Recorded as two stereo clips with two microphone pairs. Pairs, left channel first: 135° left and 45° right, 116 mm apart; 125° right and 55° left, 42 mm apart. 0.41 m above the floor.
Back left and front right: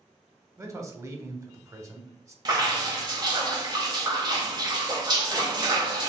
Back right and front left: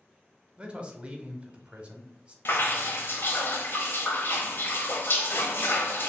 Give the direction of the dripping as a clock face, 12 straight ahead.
3 o'clock.